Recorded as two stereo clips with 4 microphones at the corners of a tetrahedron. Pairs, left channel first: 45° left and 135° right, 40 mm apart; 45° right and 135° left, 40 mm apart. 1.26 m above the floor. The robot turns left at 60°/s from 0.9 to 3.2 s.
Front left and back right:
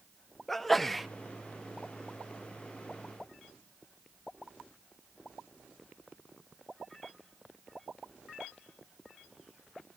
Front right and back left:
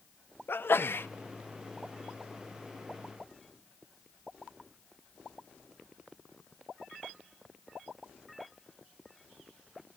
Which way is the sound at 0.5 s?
40° right.